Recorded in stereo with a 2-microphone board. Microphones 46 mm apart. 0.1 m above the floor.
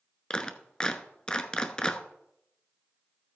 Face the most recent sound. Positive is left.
turn(degrees=15)  # may be behind; listen again after turning